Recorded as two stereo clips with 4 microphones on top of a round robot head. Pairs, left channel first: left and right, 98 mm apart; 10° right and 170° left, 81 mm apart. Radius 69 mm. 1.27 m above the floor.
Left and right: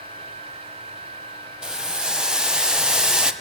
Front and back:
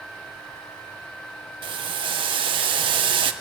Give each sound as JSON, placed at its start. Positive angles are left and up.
{"t": 1.6, "sound": "boiling", "azimuth_deg": -170, "distance_m": 0.8}